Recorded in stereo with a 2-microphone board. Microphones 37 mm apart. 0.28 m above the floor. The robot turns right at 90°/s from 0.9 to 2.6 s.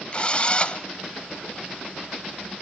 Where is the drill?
30° left (ahead or behind), 1.2 m.